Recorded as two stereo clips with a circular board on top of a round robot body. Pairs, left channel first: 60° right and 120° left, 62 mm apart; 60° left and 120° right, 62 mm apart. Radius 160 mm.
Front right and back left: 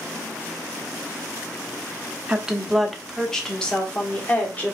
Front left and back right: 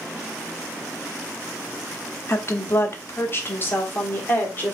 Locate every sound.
2.3 s a woman speaking: 50° left, 1.1 m; by 4.8 s straight ahead, 1.9 m